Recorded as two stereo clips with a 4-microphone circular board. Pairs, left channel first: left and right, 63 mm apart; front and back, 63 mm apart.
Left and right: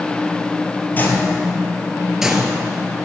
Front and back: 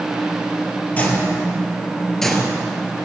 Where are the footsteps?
50° left, 1.9 m; by 2.5 s 85° right, 1.5 m.